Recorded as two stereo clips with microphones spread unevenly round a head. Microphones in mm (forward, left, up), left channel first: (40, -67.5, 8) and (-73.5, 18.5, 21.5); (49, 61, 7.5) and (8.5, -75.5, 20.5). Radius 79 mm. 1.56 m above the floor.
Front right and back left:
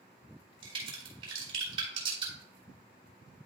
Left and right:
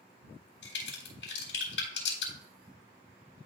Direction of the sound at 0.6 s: 85° left.